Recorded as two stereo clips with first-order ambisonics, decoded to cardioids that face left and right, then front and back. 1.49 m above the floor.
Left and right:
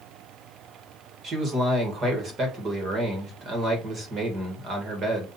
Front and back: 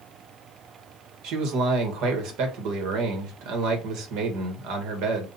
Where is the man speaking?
155° right, 1.5 m.